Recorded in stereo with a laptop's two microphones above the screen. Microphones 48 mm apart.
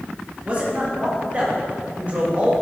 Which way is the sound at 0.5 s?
25° right (ahead or behind).